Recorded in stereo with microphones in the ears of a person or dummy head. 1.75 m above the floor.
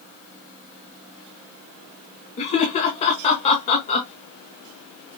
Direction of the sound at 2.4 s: 35° left (ahead or behind).